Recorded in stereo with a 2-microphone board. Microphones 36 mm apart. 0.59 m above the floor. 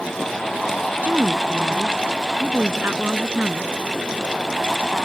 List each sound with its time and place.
1.0 s a woman speaking: 55° right (ahead or behind)